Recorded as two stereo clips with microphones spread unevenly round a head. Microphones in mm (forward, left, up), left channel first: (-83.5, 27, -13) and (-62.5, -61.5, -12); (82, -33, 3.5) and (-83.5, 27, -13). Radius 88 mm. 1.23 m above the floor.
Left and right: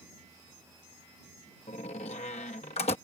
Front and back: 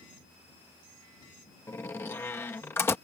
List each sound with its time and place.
1.7 s a door slam: 55° left